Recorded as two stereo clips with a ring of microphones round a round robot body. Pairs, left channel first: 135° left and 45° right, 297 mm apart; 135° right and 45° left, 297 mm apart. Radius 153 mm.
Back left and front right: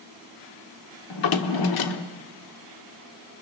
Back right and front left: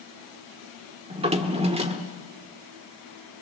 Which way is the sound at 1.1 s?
115° left.